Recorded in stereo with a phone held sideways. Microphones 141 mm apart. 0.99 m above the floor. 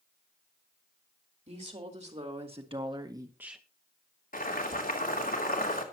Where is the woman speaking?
50° right (ahead or behind), 3.5 m; by 3.6 s centre (ahead or behind), 1.0 m.